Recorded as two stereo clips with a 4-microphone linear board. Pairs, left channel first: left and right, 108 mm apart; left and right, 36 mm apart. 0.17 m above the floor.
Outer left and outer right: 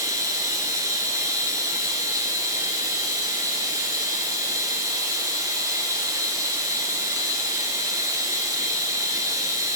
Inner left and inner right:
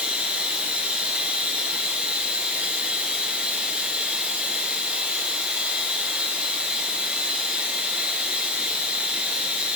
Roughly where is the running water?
Right.